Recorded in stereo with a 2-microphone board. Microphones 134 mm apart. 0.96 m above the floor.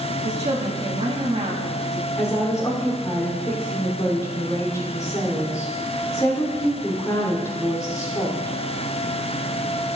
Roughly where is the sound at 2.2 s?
Left.